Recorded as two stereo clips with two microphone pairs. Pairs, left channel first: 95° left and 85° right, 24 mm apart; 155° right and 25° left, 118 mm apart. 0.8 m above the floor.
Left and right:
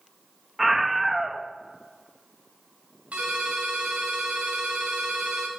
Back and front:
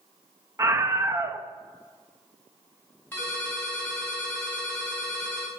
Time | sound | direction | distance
0.6 | a scream | 5° right | 0.7 m
3.1 | a ringtone | 80° right | 4 m